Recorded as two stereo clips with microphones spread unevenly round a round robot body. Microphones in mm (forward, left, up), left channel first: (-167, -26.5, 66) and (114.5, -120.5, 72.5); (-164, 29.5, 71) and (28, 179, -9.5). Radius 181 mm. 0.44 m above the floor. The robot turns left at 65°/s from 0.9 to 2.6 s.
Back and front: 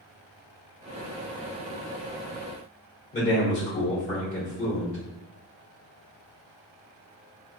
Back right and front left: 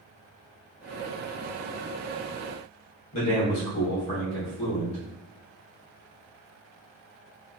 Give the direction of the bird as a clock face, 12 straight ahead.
No bird in this recording.